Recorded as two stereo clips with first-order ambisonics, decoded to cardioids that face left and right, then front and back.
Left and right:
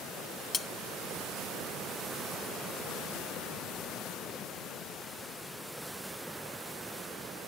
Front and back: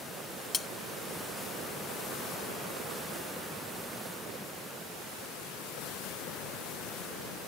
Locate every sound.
0.5 s cutlery clinking: 40° left